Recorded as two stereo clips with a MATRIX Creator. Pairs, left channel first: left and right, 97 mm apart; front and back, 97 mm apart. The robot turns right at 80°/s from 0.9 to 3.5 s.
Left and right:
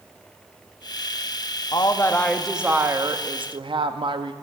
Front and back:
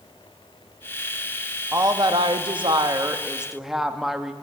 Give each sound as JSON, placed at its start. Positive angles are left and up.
{"t": 1.7, "sound": "a woman speaking", "azimuth_deg": 120, "distance_m": 0.7}